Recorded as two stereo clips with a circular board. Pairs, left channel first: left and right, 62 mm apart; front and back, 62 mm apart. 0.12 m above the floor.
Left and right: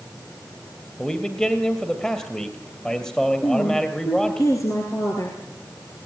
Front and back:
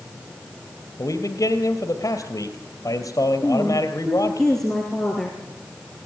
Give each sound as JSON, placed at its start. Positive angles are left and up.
{"t": 1.0, "sound": "a man speaking", "azimuth_deg": 15, "distance_m": 2.5}
{"t": 3.4, "sound": "a woman speaking", "azimuth_deg": 85, "distance_m": 3.0}